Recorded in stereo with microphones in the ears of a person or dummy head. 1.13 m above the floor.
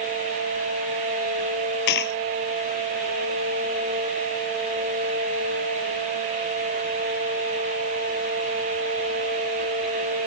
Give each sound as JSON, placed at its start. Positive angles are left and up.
{"t": 1.9, "sound": "a dropped coin", "side_deg": 55}